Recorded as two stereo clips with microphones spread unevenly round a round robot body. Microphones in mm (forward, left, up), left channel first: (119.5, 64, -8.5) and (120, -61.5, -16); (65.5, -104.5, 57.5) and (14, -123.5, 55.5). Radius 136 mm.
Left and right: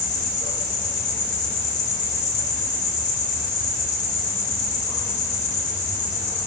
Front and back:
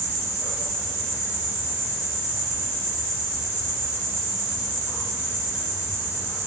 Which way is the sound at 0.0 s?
85° left.